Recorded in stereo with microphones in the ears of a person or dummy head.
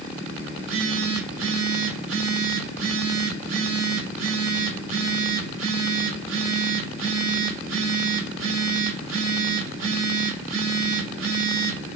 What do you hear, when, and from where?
0.6 s a phone buzzing: 90° right, 8 m